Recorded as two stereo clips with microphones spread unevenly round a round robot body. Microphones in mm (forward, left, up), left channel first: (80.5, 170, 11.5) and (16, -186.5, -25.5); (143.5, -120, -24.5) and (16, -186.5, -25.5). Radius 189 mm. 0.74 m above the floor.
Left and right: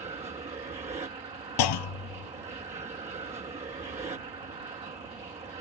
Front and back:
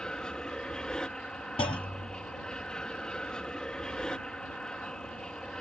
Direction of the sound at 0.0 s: 45° right.